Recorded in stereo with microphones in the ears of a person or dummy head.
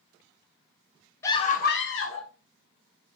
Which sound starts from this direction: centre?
A scream, at 1.2 s.